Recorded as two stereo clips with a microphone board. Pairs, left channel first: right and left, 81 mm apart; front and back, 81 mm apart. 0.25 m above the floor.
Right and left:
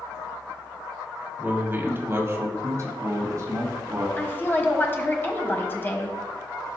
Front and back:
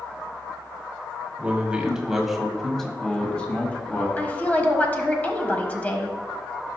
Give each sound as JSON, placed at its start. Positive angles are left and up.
{"t": 1.4, "sound": "a man speaking", "azimuth_deg": 130, "distance_m": 1.5}
{"t": 4.2, "sound": "a woman speaking", "azimuth_deg": -55, "distance_m": 1.3}